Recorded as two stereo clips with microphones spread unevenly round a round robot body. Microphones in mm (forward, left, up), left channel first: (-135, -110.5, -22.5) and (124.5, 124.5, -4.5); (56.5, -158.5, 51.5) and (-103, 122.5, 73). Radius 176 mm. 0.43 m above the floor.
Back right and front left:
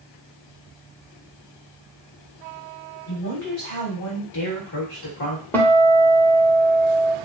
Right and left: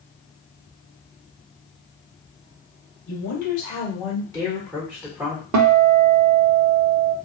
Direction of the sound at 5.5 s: 140° left.